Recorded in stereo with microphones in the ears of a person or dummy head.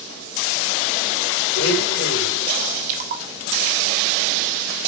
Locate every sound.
1.6 s a blender: 65° left (ahead or behind), 3 m
2.9 s a splash: 45° right (ahead or behind), 1.3 m